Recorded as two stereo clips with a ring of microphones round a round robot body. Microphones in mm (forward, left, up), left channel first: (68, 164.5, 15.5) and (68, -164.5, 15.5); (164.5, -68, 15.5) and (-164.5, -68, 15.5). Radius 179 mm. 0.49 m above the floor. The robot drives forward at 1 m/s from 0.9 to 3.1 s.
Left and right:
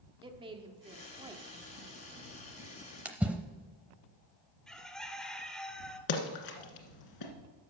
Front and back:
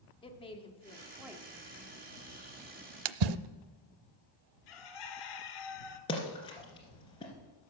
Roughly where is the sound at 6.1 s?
Left.